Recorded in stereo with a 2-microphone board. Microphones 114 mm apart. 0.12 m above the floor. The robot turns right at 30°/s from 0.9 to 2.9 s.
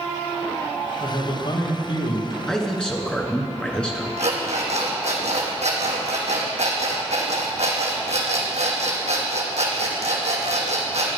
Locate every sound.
1.0 s a man speaking: 30° left, 4 m; by 2.4 s 70° left, 4 m
2.5 s a man speaking: 5° left (ahead or behind), 1.8 m; by 4.1 s 10° left (ahead or behind), 1.8 m
4.2 s an alarm clock: 75° right (ahead or behind), 3 m